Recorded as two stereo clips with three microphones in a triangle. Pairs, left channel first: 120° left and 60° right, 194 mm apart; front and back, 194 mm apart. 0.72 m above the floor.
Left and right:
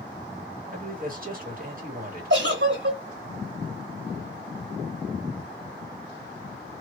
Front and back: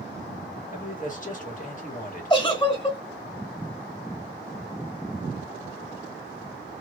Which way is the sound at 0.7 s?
35° right.